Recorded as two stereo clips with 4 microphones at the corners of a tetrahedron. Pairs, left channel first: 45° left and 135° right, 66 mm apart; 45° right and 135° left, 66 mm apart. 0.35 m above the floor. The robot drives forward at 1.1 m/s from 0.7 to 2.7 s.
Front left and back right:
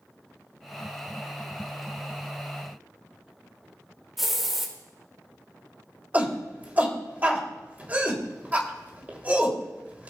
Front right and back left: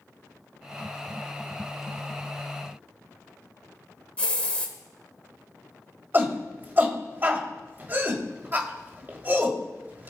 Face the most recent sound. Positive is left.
turn(degrees=175)